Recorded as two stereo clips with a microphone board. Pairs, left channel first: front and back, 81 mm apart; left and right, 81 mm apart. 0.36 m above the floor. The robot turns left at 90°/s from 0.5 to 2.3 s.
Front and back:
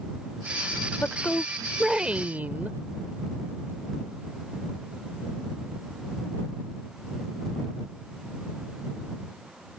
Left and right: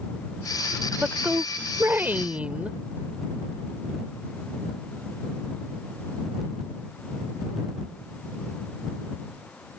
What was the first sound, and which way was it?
A woman speaking, 25° right.